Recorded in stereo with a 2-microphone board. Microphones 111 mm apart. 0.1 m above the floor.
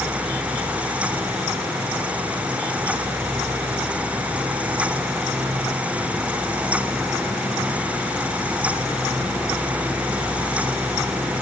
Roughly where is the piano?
No piano in this recording.